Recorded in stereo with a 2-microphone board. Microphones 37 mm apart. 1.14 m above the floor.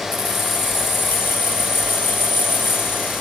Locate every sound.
0.1 s keys jangling: 75° left (ahead or behind), 0.7 m